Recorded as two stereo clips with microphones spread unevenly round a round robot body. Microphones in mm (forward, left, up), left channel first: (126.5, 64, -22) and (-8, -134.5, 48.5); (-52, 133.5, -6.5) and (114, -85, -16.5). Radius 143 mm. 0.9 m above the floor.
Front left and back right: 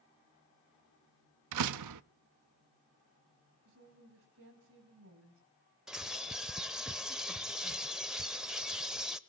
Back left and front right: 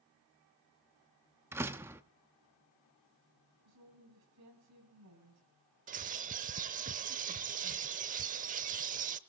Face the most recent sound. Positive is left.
turn(degrees=-75)